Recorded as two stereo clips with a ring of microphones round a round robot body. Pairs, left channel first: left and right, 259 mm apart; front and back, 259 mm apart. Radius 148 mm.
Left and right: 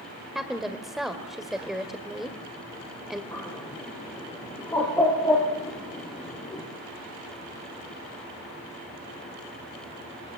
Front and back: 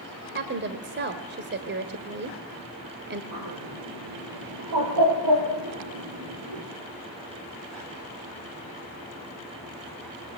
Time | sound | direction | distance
0.3 | a woman speaking | straight behind | 1.7 m
3.3 | a bird | 170° left | 7 m